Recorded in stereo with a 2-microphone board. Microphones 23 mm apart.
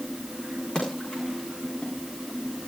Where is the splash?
30° left (ahead or behind), 8.5 m.